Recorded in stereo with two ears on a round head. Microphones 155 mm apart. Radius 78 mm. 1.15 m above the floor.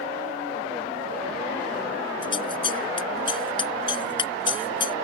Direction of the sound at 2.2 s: 30° left (ahead or behind).